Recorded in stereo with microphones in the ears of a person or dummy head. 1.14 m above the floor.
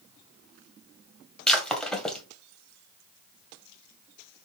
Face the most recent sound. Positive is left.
turn(degrees=5)  # may be behind; listen again after turning